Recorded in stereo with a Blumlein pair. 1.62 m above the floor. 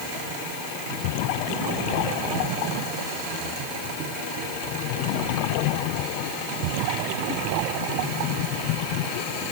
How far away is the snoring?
I don't hear snoring.